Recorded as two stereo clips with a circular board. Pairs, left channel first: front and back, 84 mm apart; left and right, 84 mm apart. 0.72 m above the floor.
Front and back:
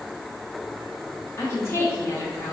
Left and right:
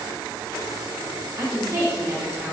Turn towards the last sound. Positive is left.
turn(degrees=-50)